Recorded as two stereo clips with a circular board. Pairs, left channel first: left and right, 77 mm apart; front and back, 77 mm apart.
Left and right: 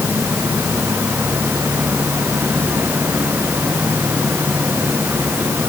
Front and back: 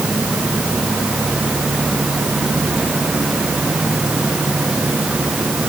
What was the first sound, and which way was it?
Only background noise.